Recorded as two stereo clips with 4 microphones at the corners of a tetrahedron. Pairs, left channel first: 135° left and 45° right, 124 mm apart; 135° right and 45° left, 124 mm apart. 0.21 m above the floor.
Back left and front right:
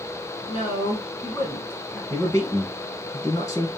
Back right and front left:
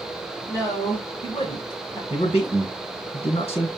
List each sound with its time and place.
0.5 s a woman speaking: 165° left, 1.9 m; by 2.0 s 150° right, 1.4 m
2.1 s a man speaking: 170° right, 2.5 m